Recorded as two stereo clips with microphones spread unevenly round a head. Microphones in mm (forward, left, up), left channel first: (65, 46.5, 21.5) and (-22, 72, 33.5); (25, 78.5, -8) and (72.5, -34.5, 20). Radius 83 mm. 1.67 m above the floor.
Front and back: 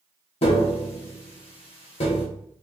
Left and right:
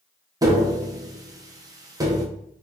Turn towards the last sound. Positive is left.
turn(degrees=-20)